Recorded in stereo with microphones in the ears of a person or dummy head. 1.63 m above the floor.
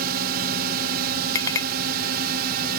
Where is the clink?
20° left (ahead or behind).